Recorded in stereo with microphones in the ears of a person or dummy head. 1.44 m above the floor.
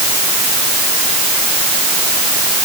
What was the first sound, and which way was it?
Only background noise.